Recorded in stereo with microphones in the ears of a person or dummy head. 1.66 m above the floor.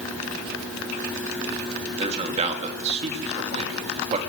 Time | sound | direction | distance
2.0 | a man speaking | 35° right (ahead or behind) | 3.5 m